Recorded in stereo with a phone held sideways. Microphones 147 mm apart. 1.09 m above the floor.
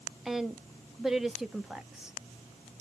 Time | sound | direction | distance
0.2 | a woman speaking | 5° right (ahead or behind) | 0.6 m